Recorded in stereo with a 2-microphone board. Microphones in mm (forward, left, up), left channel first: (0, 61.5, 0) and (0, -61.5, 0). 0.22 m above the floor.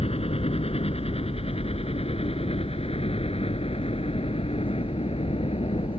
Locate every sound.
0.0 s a helicopter: 55° left (ahead or behind); by 6.0 s 50° left (ahead or behind)